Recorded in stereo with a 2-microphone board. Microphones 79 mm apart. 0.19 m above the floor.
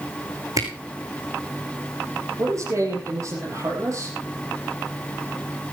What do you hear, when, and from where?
0.6 s a camera shutter: 50° right (ahead or behind), 3.5 m
2.4 s a man speaking: 45° right (ahead or behind), 5 m